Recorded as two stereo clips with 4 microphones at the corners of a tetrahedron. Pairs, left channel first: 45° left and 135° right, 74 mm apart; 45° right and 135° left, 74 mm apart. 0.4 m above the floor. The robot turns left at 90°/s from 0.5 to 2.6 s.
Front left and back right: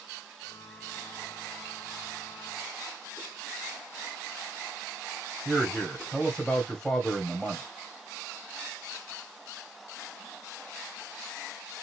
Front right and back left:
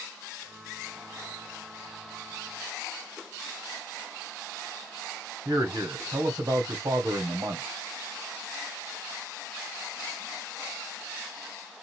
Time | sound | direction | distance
5.5 | a man speaking | 125° left | 2 m